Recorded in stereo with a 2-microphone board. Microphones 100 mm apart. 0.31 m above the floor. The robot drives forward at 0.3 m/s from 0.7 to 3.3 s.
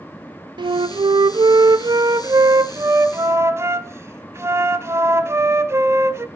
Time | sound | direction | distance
0.6 | a flute | 50° right (ahead or behind) | 0.5 m